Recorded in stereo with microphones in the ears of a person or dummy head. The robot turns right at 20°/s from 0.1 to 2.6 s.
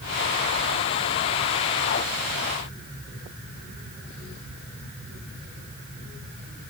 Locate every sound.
Only background noise.